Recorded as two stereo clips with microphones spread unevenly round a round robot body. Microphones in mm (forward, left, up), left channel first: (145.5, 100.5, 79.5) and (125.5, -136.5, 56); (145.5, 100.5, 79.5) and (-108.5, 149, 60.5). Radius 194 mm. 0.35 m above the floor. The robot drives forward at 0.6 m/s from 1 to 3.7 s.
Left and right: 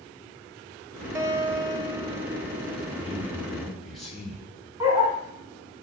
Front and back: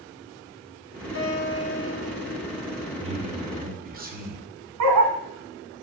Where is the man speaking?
175° right, 1.3 m; by 4.5 s straight behind, 1.6 m.